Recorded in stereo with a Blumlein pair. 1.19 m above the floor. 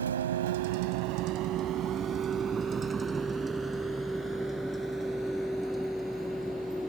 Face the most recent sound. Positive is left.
turn(degrees=0)